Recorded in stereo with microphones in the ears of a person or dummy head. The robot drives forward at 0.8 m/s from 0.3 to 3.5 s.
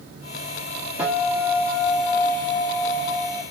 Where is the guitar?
5° right (ahead or behind), 2.5 m.